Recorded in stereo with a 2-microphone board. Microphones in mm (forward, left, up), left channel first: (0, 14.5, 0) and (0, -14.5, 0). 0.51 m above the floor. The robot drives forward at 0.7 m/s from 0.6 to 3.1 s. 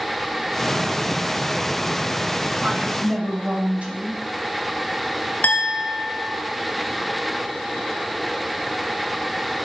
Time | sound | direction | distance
2.6 | a woman speaking | 45° right (ahead or behind) | 2.5 m
5.4 | a clink | 70° left (ahead or behind) | 1.6 m